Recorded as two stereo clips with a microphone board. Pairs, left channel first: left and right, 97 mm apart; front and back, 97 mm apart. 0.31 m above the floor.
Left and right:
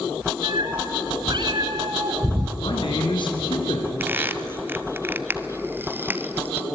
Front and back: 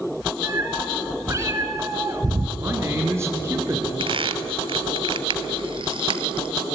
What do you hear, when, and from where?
0.4 s a cat meowing: 120° right, 2.5 m; by 2.5 s 125° right, 1.4 m
2.6 s a man speaking: 120° left, 3.5 m
4.0 s a squeak: 155° right, 0.8 m